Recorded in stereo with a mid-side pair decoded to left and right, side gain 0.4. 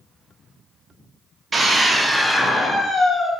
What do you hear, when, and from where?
1.5 s a scream: 35° right, 0.9 m; by 3.3 s 55° left, 1.2 m